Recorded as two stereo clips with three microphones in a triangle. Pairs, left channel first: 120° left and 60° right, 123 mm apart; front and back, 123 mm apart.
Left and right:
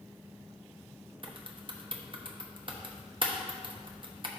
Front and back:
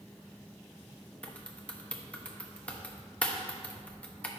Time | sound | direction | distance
1.2 | typing on a keyboard | 75° right | 0.9 m